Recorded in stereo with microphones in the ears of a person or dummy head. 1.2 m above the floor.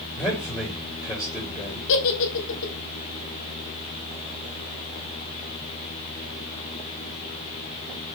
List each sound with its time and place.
0.1 s a man speaking: 15° left (ahead or behind), 4 m
1.9 s a giggle: 70° left (ahead or behind), 1.6 m